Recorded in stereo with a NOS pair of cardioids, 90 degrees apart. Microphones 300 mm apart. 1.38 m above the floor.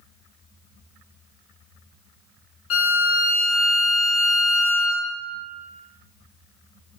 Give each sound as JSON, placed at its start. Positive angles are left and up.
{"t": 2.7, "sound": "a violin", "azimuth_deg": 50, "distance_m": 0.5}